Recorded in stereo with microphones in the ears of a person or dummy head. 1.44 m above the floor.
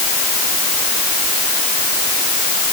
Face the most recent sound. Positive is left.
No sound to turn to.